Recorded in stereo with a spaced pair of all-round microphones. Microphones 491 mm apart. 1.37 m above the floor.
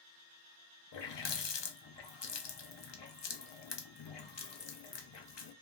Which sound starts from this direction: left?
A running tap, at 0.9 s.